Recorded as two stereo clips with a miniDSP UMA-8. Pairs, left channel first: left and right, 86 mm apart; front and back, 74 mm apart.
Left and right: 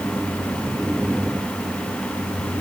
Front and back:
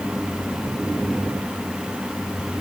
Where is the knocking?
No knocking in this recording.